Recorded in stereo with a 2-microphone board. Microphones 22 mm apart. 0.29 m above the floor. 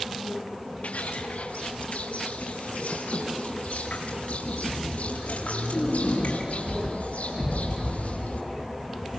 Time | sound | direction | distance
0.8 | footsteps | 70° left (ahead or behind) | 4.5 m